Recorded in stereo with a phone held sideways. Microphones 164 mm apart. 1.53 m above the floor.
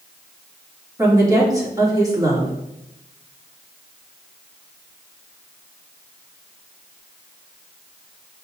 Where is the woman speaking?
20° right (ahead or behind), 3.5 m.